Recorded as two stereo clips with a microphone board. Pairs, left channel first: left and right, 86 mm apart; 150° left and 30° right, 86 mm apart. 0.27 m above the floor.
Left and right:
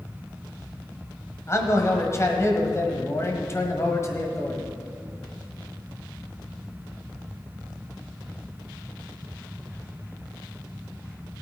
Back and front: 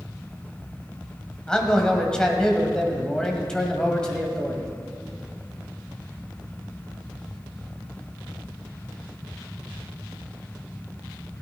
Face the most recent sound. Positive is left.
turn(degrees=75)